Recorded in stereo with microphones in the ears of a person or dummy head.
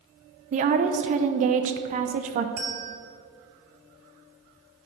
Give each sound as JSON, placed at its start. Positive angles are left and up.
{"t": 0.5, "sound": "a woman speaking", "side_deg": -40, "distance_m": 0.6}
{"t": 2.6, "sound": "a bell", "side_deg": -40, "distance_m": 1.4}